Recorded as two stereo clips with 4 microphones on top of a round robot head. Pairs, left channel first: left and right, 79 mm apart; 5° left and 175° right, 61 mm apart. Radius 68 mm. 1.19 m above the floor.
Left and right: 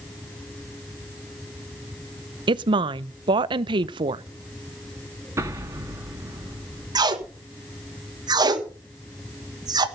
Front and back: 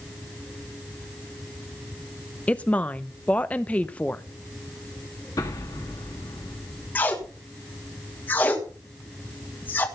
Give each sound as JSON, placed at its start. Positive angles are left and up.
{"t": 2.5, "sound": "a woman speaking", "azimuth_deg": -65, "distance_m": 0.6}
{"t": 5.4, "sound": "an explosion", "azimuth_deg": -35, "distance_m": 1.8}
{"t": 7.0, "sound": "tape being pulled", "azimuth_deg": -60, "distance_m": 1.7}